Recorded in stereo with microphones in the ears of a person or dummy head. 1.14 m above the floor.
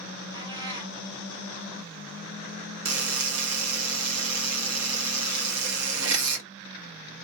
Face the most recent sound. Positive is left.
turn(degrees=-75)  # may be behind; listen again after turning